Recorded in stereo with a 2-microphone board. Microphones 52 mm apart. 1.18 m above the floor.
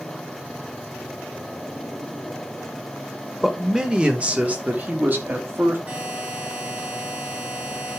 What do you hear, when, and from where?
3.4 s a man speaking: 10° right (ahead or behind), 1.5 m; by 5.8 s 40° right (ahead or behind), 2.5 m
5.9 s a buzzer: 30° right (ahead or behind), 4 m